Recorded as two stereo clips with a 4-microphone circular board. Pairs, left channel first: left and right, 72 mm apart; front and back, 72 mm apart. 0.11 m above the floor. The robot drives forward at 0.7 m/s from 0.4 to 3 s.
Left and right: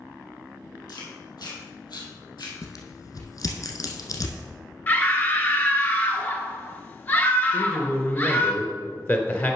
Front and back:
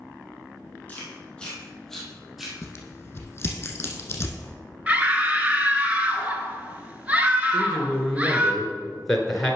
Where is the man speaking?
85° left, 1.2 m.